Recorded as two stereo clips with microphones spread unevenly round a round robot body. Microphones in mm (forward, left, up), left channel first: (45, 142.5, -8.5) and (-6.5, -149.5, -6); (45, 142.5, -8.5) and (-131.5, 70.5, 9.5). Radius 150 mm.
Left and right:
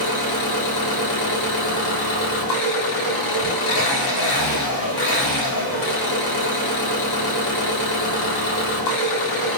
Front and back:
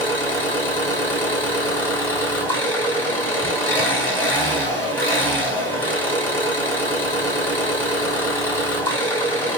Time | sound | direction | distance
0.0 | an engine running | 105° left | 1.5 m